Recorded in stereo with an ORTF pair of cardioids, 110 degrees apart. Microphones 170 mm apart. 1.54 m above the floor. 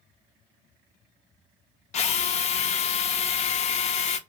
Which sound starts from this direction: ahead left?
A drill, at 1.9 s.